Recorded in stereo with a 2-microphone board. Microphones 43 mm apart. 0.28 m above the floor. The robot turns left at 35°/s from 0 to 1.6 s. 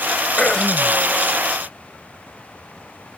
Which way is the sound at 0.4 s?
20° left (ahead or behind).